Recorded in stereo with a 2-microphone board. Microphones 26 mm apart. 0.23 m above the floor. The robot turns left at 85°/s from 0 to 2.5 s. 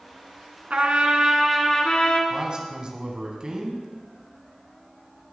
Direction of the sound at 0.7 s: 105° right.